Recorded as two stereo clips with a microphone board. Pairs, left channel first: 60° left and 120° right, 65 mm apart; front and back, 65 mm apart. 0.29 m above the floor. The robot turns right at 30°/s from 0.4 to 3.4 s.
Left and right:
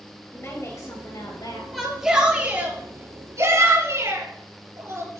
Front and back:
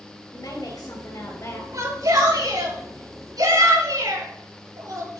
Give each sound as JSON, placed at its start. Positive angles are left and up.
{"t": 0.3, "sound": "a woman speaking", "azimuth_deg": 10, "distance_m": 4.5}
{"t": 1.7, "sound": "a shout", "azimuth_deg": 150, "distance_m": 6.5}